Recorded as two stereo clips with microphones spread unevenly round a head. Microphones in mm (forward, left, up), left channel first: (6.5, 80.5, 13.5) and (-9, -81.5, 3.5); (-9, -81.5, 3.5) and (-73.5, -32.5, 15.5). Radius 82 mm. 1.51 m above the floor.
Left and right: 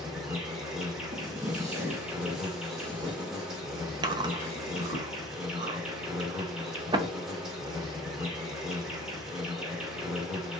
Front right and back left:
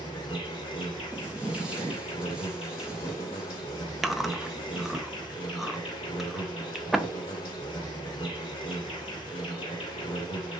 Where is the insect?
10° right, 2 m.